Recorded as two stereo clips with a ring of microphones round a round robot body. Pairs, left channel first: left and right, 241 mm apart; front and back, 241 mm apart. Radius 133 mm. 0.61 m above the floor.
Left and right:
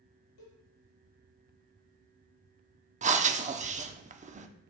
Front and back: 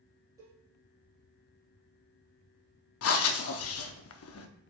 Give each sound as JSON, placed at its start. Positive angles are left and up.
{"t": 0.4, "sound": "a cowbell", "azimuth_deg": 100, "distance_m": 3.5}
{"t": 3.0, "sound": "breathing", "azimuth_deg": -30, "distance_m": 0.7}